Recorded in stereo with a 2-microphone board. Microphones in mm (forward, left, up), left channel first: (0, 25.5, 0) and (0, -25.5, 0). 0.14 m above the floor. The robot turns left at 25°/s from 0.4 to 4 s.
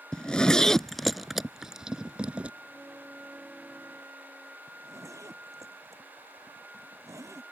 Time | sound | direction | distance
0.1 | a zipper | 15° left (ahead or behind) | ?
2.6 | a violin | 130° right | ?
4.7 | a zipper | 80° right | ?